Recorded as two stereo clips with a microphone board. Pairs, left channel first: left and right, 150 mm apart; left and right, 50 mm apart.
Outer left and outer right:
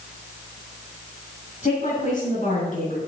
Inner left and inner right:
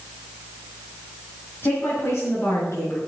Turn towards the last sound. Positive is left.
turn(degrees=60)  # may be behind; listen again after turning